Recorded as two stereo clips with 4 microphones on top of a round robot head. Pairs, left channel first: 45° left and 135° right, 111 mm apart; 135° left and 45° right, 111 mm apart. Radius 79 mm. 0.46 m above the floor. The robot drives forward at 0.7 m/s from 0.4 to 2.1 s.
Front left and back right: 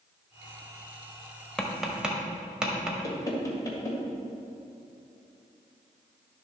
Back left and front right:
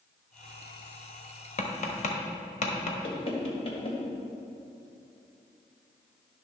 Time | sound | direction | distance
1.6 | tapping | 130° left | 1.2 m
3.0 | knocking | 105° left | 1.7 m